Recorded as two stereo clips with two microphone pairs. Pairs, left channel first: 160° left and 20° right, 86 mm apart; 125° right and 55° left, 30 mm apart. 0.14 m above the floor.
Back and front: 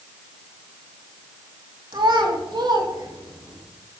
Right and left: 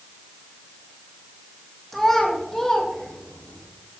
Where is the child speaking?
40° right, 3.5 m; by 3.6 s 55° right, 5 m.